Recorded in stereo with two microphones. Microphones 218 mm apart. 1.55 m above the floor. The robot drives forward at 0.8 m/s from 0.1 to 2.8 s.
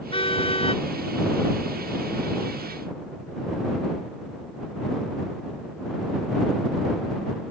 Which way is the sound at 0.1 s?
25° left (ahead or behind).